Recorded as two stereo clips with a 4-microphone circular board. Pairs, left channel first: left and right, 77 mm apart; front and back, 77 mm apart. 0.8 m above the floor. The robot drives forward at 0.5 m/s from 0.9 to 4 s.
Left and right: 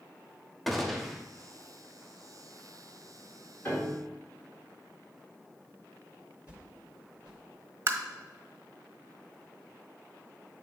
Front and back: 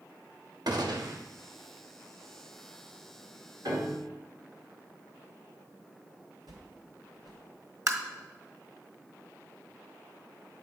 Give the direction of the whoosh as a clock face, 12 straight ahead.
5 o'clock.